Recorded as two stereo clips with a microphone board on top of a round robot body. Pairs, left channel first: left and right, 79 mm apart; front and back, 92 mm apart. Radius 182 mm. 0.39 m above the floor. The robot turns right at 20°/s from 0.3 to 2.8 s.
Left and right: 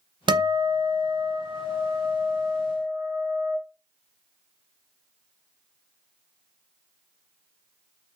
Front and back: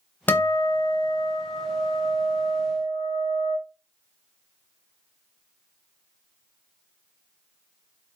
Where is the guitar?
70° right, 0.8 m; by 3.6 s 20° right, 0.8 m.